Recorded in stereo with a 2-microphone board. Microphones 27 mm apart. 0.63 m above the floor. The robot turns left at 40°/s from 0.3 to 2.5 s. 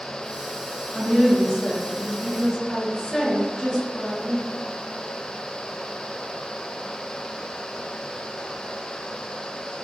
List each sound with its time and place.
0.9 s a woman speaking: 105° left, 1.0 m; by 4.5 s 40° left, 1.0 m